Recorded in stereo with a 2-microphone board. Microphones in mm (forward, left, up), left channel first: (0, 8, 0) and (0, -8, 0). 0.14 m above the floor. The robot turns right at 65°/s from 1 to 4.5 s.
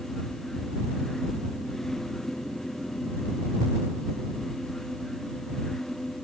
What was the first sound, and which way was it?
Only background noise.